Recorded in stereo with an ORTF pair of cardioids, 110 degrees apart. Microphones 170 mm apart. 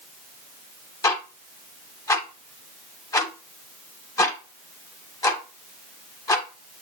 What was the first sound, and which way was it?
Ticking, 20° left.